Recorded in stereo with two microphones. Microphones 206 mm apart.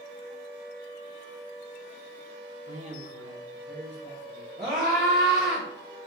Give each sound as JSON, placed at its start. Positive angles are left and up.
{"t": 2.7, "sound": "a man speaking", "side_deg": -30, "distance_m": 1.1}
{"t": 4.6, "sound": "a scream", "side_deg": -45, "distance_m": 1.2}